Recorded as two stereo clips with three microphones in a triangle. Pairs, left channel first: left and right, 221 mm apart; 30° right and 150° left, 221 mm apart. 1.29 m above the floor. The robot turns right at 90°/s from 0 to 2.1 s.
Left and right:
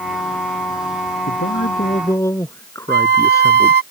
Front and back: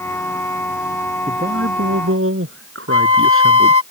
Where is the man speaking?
90° left; by 3.8 s 165° left.